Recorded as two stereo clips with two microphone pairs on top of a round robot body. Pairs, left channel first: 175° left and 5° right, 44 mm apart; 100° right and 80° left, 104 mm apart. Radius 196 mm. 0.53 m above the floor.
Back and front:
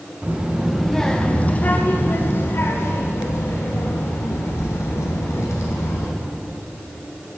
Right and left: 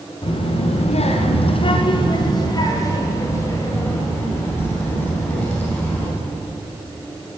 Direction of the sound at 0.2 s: 65° right.